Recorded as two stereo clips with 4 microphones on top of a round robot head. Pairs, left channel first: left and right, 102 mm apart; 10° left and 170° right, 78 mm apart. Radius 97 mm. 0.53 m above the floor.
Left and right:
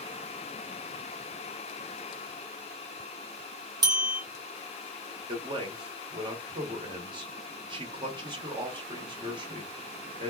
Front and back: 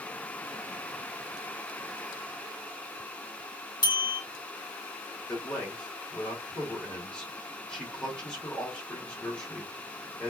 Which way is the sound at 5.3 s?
65° right.